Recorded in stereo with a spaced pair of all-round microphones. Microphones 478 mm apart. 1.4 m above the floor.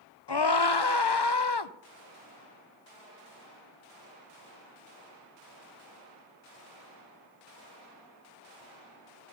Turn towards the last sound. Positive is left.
turn(degrees=55)  # may be behind; listen again after turning